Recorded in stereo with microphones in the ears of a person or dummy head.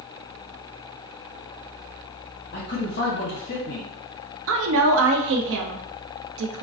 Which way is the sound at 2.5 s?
45° left (ahead or behind).